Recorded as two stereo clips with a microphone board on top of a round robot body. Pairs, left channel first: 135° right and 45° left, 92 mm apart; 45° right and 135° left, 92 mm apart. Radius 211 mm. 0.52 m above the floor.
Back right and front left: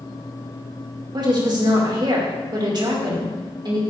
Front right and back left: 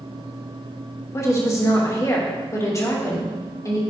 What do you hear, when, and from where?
1.1 s a woman speaking: 10° left, 2.5 m